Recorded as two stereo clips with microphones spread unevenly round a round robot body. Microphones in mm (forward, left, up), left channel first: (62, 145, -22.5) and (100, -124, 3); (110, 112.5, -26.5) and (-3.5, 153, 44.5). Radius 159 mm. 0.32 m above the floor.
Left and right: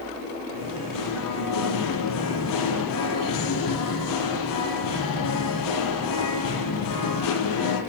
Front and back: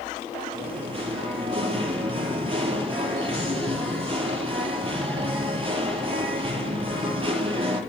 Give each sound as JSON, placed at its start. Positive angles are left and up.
{"t": 0.5, "sound": "singing", "azimuth_deg": 120, "distance_m": 7.0}